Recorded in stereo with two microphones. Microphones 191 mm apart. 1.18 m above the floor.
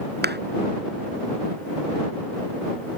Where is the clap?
60° right (ahead or behind).